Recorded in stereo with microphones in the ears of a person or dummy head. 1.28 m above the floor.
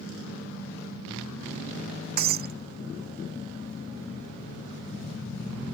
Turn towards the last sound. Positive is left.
turn(degrees=-50)  # may be behind; listen again after turning